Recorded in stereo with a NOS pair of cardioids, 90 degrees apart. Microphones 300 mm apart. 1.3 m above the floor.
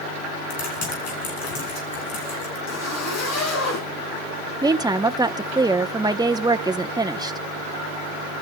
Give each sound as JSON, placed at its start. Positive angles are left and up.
{"t": 0.5, "sound": "typing on a keyboard", "azimuth_deg": 65, "distance_m": 6.0}
{"t": 2.7, "sound": "a zipper", "azimuth_deg": 60, "distance_m": 6.0}
{"t": 4.6, "sound": "a woman speaking", "azimuth_deg": -15, "distance_m": 0.8}